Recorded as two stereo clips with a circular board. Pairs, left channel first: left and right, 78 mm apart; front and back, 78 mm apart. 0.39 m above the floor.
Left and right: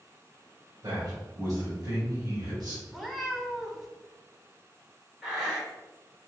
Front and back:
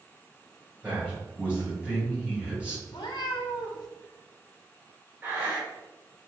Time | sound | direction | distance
0.8 | a man speaking | 105° right | 1.8 m
2.9 | a cat meowing | straight ahead | 0.6 m
5.2 | breathing | 165° right | 1.3 m